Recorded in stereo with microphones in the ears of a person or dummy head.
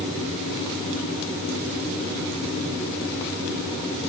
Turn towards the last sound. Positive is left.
No sound to turn to.